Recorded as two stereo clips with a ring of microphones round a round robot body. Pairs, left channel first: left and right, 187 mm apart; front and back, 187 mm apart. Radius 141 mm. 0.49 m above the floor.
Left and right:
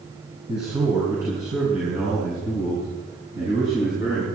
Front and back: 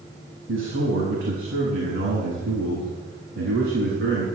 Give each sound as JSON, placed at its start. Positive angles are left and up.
{"t": 0.5, "sound": "a man speaking", "azimuth_deg": -165, "distance_m": 4.0}